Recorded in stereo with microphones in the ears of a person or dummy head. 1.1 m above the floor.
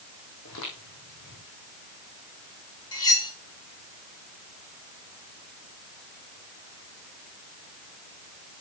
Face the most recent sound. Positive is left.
turn(degrees=25)  # may be behind; listen again after turning